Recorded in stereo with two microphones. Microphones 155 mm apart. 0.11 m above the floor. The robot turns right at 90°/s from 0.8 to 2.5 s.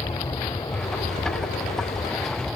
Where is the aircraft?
30° left; by 2.6 s straight behind.